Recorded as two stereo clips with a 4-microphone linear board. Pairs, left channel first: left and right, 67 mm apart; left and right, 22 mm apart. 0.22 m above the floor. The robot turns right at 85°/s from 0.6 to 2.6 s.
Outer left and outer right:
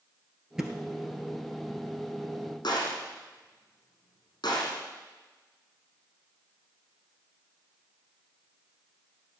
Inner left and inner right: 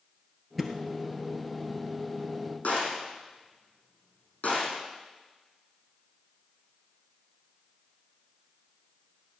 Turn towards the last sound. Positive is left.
turn(degrees=75)  # may be behind; listen again after turning